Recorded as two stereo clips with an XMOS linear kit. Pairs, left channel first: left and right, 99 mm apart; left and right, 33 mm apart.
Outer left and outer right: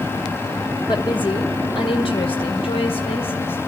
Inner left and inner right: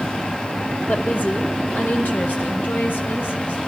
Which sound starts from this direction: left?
A woman speaking, at 0.9 s.